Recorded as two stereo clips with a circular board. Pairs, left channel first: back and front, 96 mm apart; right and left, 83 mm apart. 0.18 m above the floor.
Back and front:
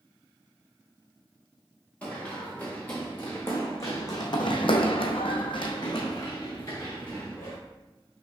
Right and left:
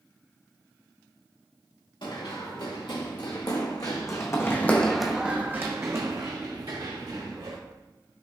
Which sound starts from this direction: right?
Running footsteps, at 2.0 s.